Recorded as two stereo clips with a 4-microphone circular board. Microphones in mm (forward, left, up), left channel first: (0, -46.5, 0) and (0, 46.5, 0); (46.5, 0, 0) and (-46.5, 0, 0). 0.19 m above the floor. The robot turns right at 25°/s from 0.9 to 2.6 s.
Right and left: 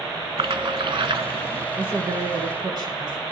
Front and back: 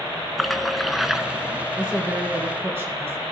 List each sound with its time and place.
0.4 s a splash: 90° left, 0.5 m; by 1.7 s 110° left, 0.5 m
1.8 s a woman speaking: 95° left, 2 m; by 3.2 s 120° left, 2 m